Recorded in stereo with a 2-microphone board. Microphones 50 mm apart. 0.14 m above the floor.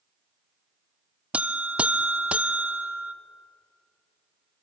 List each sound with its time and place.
1.3 s a buzzer: 25° right (ahead or behind), 0.9 m